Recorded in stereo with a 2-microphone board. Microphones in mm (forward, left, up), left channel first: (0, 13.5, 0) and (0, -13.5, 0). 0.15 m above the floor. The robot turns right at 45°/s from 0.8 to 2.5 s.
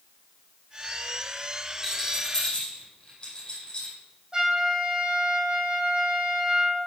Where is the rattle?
Centre (ahead or behind), 5 m; by 4.0 s 30° left (ahead or behind), 5 m.